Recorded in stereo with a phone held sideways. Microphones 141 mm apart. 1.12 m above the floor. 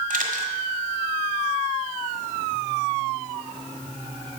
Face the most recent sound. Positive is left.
turn(degrees=-65)  # may be behind; listen again after turning